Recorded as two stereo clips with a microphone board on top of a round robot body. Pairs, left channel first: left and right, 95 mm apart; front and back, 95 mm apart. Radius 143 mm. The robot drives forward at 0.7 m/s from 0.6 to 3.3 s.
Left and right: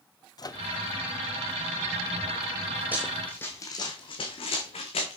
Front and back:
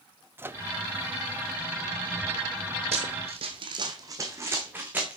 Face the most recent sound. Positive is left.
turn(degrees=105)